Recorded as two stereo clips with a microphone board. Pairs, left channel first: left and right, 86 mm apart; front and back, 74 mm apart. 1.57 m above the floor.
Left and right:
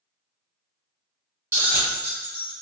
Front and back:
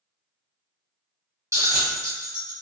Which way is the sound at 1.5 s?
145° right.